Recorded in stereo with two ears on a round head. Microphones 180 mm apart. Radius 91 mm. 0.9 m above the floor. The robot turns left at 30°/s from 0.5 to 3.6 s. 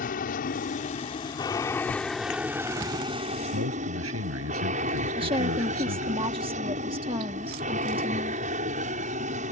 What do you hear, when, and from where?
0.0 s an aircraft: 50° left; by 9.5 s 40° right
3.5 s a man speaking: 85° right
5.2 s a woman speaking: 25° right (ahead or behind)